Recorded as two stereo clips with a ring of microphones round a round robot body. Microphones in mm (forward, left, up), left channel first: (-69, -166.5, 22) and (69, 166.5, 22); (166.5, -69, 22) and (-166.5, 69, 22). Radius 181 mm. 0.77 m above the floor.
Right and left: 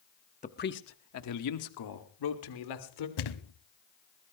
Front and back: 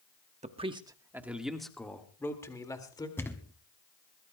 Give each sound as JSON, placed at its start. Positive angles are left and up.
{"t": 0.4, "sound": "a man speaking", "azimuth_deg": -155, "distance_m": 1.0}
{"t": 3.2, "sound": "a thud", "azimuth_deg": -105, "distance_m": 1.0}